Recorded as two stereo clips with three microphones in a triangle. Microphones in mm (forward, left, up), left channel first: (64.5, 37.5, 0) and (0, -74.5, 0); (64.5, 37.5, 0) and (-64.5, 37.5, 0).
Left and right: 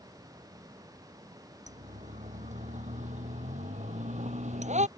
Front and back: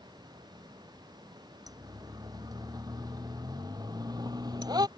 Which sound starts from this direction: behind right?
A siren, at 1.7 s.